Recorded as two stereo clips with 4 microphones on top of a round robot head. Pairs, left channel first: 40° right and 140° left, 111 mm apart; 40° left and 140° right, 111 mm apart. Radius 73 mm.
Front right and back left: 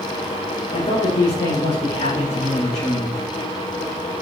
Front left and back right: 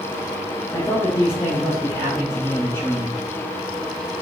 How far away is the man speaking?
About 3.5 m.